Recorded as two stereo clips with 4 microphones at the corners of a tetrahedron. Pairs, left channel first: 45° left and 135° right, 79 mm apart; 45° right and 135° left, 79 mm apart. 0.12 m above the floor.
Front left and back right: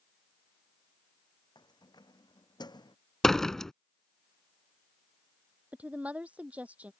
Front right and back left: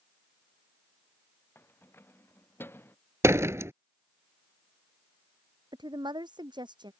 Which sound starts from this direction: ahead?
Keys jangling, at 1.6 s.